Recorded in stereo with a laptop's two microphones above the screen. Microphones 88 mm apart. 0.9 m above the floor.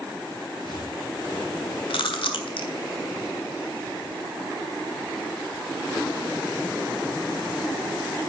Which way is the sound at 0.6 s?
55° left (ahead or behind).